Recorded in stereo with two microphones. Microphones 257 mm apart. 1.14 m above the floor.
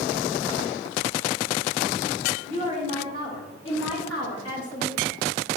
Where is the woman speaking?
20° left (ahead or behind), 1.3 m; by 5.0 s 65° left (ahead or behind), 2 m.